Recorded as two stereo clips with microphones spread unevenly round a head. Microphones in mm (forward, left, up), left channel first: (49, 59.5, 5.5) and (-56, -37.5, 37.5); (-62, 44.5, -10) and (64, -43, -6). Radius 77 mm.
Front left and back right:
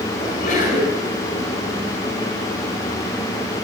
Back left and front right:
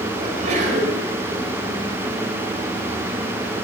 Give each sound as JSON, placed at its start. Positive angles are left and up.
{"t": 0.2, "sound": "a sneeze", "azimuth_deg": 5, "distance_m": 5.5}